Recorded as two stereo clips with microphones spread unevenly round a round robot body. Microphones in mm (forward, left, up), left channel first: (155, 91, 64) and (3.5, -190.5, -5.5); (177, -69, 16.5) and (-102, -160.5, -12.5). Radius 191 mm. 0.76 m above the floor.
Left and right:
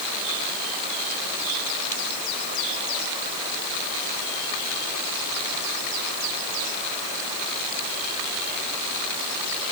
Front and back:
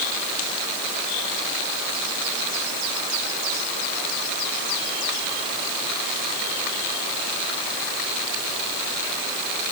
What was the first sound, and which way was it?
Only background noise.